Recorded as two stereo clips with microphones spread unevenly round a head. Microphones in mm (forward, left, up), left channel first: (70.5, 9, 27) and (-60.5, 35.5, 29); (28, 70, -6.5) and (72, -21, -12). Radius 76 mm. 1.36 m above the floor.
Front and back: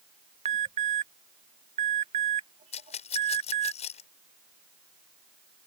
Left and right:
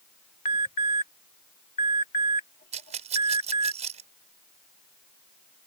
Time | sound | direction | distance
0.5 | an alarm | 130° left | ?
2.7 | a rattle | 60° right | ?